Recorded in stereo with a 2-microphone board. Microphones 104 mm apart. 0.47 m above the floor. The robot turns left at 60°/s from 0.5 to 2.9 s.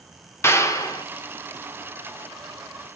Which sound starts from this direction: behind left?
A clap, at 0.4 s.